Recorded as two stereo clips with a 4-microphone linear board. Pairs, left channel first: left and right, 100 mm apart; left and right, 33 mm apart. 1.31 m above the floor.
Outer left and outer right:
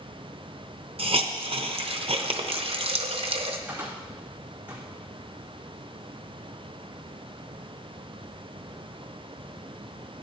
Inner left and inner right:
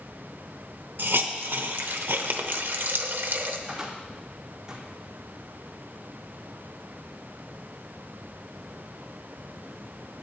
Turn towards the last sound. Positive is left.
turn(degrees=-15)  # may be behind; listen again after turning